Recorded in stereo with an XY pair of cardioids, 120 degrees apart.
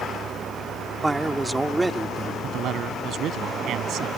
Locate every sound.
0.0 s a vehicle: 40° right; by 4.2 s 55° right
1.0 s a man speaking: 15° right
2.4 s a man speaking: 65° right